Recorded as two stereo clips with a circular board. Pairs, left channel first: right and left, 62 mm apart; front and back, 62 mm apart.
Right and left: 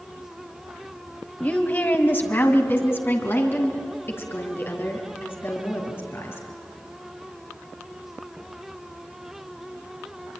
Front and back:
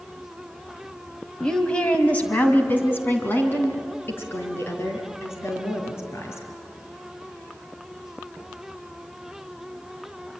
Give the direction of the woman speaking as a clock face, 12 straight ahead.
2 o'clock.